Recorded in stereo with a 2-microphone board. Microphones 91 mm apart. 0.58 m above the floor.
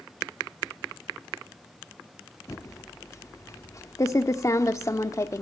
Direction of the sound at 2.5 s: 35° left (ahead or behind).